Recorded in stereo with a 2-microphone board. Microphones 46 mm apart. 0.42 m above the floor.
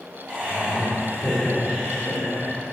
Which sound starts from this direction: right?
Laughter, at 0.3 s.